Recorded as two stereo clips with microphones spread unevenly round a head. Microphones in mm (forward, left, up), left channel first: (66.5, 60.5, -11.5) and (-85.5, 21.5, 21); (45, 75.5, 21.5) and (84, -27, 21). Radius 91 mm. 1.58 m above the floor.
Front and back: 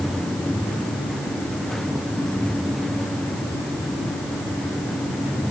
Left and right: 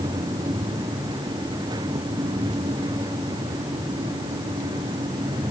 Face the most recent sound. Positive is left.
No sound to turn to.